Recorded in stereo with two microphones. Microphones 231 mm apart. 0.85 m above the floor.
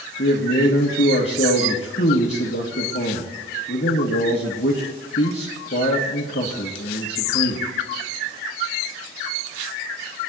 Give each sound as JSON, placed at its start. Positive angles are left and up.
{"t": 0.2, "sound": "a man speaking", "side_deg": 60, "distance_m": 1.4}